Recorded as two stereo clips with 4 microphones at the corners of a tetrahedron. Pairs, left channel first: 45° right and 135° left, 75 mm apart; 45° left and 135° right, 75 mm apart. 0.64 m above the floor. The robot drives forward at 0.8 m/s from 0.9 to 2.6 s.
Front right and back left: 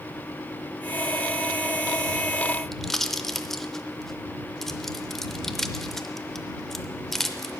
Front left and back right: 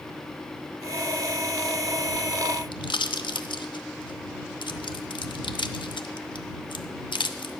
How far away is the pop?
About 0.7 m.